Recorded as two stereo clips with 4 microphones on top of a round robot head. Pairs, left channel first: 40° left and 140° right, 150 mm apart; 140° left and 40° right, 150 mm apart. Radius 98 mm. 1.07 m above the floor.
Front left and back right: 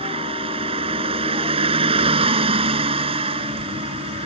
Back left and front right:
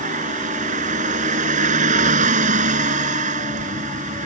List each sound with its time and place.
0.0 s a vehicle: 85° right